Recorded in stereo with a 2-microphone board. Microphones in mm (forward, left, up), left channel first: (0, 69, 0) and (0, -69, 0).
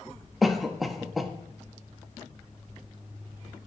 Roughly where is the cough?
Centre.